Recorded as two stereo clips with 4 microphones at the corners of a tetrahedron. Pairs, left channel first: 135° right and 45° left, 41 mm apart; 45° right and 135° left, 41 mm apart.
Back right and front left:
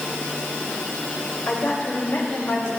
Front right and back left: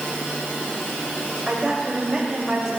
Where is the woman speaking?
145° right, 4 m; by 2.7 s 150° right, 3 m.